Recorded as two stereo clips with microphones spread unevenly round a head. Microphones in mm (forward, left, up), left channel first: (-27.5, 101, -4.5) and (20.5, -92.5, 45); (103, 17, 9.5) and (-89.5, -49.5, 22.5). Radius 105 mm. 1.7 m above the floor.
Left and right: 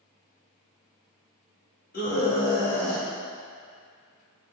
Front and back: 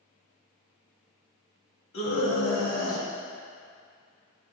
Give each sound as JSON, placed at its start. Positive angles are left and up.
{"t": 1.9, "sound": "a scream", "azimuth_deg": 50, "distance_m": 2.0}